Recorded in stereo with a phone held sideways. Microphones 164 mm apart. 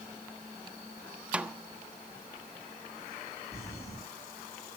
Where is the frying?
I don't hear frying.